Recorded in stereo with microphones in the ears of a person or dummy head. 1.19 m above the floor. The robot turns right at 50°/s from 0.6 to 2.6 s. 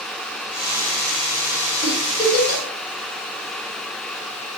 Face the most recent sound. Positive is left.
turn(degrees=45)  # may be behind; listen again after turning